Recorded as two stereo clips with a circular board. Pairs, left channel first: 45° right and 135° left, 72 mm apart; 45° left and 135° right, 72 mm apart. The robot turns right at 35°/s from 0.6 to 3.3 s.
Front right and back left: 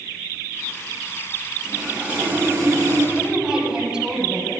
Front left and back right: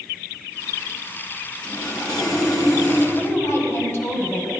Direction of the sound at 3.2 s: 55° left.